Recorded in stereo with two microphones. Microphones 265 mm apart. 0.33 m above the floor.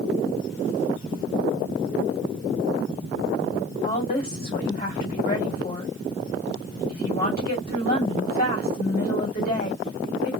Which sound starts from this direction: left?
A woman speaking, at 3.8 s.